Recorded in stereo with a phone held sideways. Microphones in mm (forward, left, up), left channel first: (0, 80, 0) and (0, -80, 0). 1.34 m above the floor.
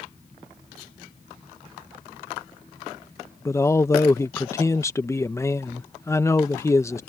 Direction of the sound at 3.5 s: 20° left (ahead or behind).